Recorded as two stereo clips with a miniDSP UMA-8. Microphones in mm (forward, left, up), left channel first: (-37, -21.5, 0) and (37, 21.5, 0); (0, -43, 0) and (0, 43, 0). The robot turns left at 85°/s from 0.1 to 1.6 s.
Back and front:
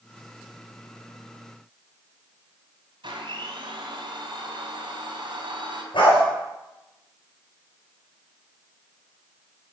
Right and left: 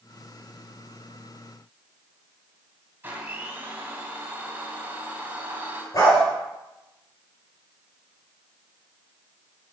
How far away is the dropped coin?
I don't hear a dropped coin.